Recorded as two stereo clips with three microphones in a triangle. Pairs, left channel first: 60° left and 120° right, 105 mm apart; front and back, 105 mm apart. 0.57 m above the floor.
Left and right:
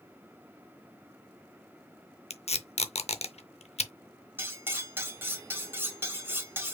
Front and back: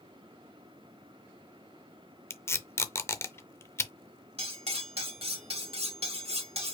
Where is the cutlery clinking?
170° left, 1.3 m.